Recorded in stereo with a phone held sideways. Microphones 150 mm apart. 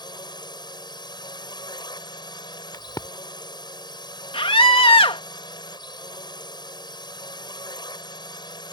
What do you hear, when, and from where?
0.0 s a drone: 30° left (ahead or behind)
2.7 s a crack: 25° left (ahead or behind)
4.3 s a scream: 35° left (ahead or behind)